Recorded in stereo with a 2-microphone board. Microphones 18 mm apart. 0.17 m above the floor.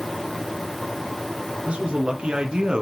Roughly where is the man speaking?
Right.